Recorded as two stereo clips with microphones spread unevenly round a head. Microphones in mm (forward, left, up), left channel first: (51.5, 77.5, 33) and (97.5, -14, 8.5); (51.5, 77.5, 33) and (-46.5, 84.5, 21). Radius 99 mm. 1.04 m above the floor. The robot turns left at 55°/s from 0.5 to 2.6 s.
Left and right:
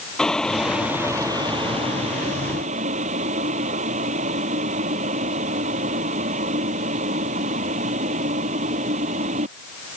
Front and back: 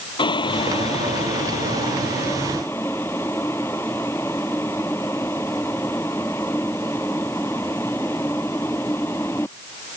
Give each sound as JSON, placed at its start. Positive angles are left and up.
{"t": 0.2, "sound": "boiling", "azimuth_deg": 35}